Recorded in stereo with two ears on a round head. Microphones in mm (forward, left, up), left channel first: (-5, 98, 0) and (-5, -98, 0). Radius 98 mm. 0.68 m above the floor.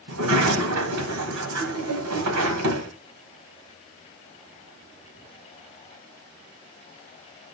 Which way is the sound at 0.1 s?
80° right.